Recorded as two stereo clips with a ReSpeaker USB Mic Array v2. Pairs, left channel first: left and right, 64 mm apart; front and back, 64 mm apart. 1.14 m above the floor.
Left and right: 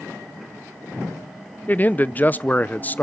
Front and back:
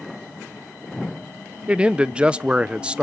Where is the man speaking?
120° left, 0.6 m.